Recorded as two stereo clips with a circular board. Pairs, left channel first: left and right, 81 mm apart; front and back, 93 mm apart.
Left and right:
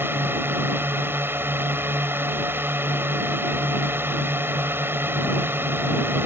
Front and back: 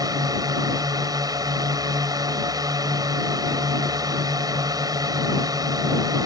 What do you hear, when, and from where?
0.0 s a drone: 145° right